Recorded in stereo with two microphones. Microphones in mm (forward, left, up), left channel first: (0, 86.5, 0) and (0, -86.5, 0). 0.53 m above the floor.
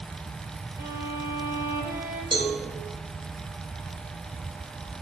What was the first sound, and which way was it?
A violin, 20° right (ahead or behind).